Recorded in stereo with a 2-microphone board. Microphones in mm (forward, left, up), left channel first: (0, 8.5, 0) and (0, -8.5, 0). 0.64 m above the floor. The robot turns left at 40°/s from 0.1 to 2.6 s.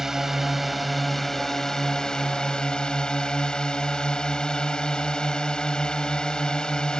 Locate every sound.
0.0 s a drone: 150° right; by 7.0 s 110° left